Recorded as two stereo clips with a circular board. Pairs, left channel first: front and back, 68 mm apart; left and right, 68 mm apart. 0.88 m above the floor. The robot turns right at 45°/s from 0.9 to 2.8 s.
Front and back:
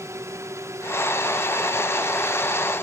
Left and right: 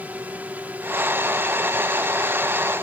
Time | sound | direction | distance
0.0 | a drone | 150° right | ?